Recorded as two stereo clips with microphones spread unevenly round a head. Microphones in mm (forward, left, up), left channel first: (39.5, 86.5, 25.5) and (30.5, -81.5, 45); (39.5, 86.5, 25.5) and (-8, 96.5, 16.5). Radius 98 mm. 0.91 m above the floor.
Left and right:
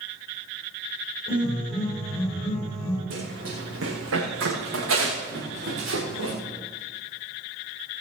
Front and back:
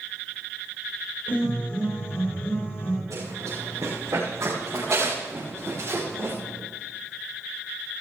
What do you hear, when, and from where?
1.3 s a piano: 30° left, 8 m
3.1 s running footsteps: 125° right, 5.5 m; by 6.3 s 105° right, 5.5 m